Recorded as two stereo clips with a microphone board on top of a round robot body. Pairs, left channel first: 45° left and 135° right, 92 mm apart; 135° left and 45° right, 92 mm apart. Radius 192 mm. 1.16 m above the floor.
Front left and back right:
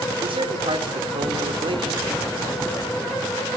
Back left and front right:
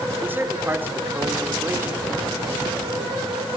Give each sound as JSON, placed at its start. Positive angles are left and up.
{"t": 0.2, "sound": "a man speaking", "azimuth_deg": -110, "distance_m": 5.0}